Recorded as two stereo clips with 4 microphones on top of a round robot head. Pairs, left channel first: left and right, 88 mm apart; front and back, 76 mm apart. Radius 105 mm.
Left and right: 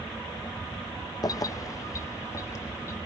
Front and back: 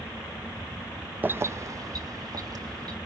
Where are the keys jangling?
120° left, 0.5 m; by 3.0 s 150° left, 1.7 m.